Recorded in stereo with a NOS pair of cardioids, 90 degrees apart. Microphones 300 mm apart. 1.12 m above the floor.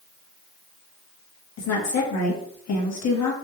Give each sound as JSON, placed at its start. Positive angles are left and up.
{"t": 1.6, "sound": "a woman speaking", "azimuth_deg": 60, "distance_m": 1.3}